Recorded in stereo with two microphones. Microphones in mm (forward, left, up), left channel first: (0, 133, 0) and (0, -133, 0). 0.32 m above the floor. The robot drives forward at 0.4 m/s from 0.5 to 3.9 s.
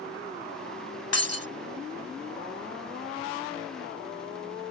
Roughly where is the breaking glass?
Left.